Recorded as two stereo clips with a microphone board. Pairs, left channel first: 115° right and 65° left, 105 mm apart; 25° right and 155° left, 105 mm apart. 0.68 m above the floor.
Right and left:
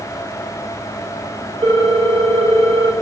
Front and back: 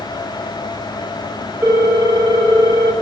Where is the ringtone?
100° left, 1.3 m.